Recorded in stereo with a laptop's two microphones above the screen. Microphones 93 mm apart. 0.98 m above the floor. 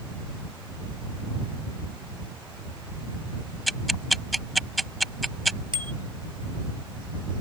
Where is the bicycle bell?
60° right (ahead or behind).